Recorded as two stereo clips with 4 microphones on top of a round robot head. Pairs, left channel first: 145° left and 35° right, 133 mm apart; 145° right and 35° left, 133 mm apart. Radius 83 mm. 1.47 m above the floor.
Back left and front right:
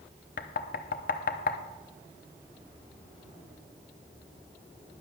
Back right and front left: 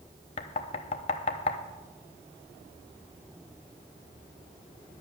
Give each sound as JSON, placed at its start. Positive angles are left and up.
{"t": 0.4, "sound": "knocking", "azimuth_deg": 170, "distance_m": 0.7}